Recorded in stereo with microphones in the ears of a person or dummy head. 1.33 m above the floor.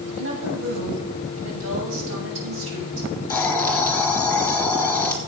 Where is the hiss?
10° left (ahead or behind), 3 m.